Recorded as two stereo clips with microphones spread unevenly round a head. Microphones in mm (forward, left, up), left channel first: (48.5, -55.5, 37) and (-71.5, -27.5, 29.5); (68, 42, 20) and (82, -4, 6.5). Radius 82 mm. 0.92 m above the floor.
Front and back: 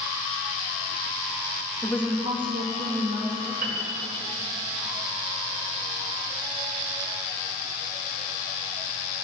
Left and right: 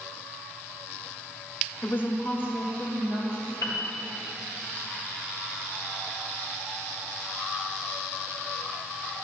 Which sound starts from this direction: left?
A woman speaking, at 1.8 s.